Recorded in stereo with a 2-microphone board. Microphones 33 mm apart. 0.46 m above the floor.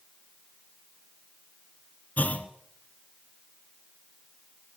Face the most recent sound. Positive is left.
turn(degrees=50)  # may be behind; listen again after turning